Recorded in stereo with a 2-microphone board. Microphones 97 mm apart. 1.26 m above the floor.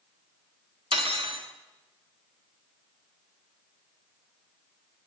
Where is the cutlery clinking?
65° right (ahead or behind), 1.5 m.